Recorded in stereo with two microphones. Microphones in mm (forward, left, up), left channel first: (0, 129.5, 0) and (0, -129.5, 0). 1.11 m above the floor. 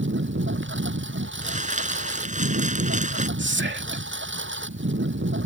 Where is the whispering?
45° right (ahead or behind).